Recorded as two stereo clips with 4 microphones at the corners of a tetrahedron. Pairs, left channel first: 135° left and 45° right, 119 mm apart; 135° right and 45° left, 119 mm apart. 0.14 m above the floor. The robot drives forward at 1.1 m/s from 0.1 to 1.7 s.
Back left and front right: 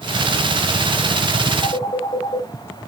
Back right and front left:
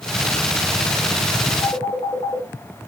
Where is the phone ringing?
175° left, 3.5 m.